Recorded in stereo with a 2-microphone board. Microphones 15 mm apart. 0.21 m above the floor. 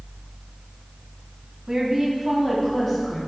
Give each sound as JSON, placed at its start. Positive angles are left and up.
{"t": 1.7, "sound": "a woman speaking", "side_deg": -35, "distance_m": 1.4}